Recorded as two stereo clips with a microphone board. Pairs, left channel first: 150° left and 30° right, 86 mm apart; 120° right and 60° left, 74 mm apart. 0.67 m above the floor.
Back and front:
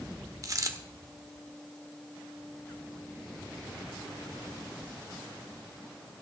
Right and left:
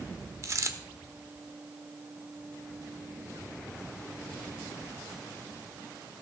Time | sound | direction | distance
0.4 | a dropped coin | 15° left | 0.9 m